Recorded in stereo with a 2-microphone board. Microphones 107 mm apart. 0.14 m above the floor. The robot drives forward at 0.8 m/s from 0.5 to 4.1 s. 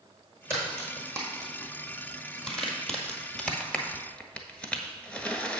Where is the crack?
Centre (ahead or behind), 3.5 m; by 5.6 s 10° left (ahead or behind), 0.9 m.